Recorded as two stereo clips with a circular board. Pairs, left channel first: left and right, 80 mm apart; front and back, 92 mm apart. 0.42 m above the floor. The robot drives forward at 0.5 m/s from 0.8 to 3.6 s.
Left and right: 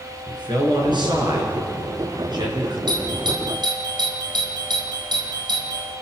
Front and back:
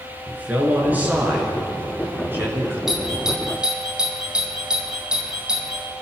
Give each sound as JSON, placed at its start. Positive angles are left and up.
{"t": 0.3, "sound": "a man speaking", "azimuth_deg": -105, "distance_m": 7.0}
{"t": 2.9, "sound": "a doorbell", "azimuth_deg": -95, "distance_m": 4.5}